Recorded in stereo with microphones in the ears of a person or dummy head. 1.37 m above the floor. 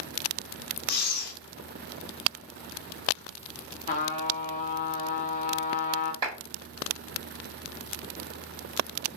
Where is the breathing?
55° left (ahead or behind), 0.9 m.